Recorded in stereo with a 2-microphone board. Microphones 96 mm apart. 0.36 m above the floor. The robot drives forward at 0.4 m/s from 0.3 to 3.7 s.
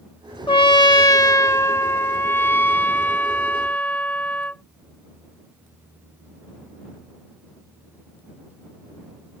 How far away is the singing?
No singing in this recording.